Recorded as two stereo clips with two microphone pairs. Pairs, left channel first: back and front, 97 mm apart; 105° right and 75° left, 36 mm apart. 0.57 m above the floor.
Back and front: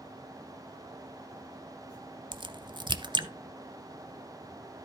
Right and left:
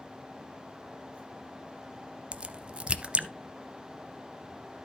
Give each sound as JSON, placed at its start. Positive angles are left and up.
{"t": 2.3, "sound": "a crack", "azimuth_deg": 25, "distance_m": 0.7}